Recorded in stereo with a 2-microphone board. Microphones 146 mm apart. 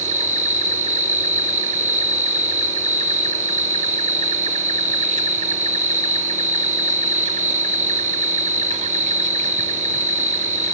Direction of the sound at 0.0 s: 55° right (ahead or behind).